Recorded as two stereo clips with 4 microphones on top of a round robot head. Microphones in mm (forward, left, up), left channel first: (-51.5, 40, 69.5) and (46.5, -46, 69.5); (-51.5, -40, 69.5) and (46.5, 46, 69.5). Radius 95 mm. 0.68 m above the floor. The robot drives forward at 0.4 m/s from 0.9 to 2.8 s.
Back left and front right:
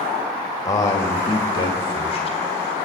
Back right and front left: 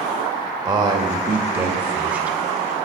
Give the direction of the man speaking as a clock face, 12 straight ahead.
9 o'clock.